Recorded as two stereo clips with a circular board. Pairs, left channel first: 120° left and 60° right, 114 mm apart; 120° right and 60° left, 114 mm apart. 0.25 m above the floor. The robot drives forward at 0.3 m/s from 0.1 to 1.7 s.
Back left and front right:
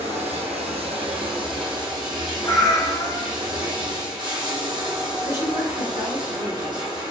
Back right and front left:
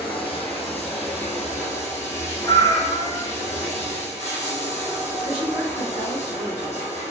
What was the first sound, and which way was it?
Running water, 80° right.